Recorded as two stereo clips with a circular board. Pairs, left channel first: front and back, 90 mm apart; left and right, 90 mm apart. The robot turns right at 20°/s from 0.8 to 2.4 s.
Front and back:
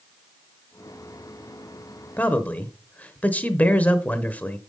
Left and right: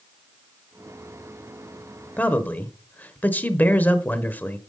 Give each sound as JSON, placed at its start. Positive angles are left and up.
{"t": 2.2, "sound": "a man speaking", "azimuth_deg": 45, "distance_m": 0.9}